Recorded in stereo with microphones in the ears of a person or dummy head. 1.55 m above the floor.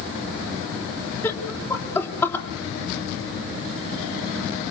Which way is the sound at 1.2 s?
15° left (ahead or behind).